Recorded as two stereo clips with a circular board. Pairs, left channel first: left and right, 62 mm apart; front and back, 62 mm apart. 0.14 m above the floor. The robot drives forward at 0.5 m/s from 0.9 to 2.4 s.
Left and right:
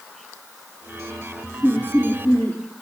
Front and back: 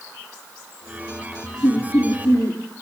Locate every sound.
1.6 s laughter: 40° left, 3.5 m